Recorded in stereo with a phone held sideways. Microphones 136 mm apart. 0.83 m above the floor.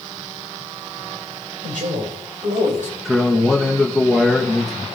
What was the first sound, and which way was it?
A man speaking, 80° right.